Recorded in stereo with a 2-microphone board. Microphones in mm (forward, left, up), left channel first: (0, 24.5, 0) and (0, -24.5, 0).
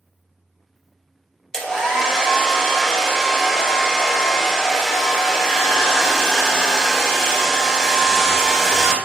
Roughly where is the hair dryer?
Centre.